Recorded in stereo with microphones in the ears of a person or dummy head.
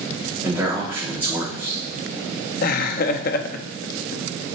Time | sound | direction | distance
0.4 | a man speaking | 10° right (ahead or behind) | 4.5 m
2.6 | laughter | 55° left (ahead or behind) | 0.9 m